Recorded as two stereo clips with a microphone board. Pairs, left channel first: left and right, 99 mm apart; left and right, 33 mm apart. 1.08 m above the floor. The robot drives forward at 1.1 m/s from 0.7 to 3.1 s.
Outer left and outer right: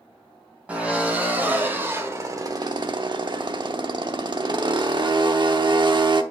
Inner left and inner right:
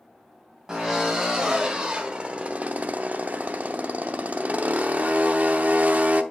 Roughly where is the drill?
Centre.